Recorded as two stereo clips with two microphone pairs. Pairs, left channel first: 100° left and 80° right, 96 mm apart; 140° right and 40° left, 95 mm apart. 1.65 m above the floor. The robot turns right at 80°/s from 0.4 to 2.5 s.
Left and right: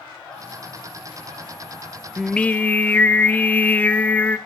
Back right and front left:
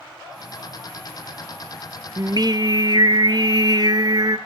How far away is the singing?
About 0.6 m.